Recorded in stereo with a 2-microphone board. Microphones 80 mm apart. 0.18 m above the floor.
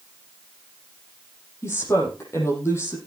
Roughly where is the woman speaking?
Left.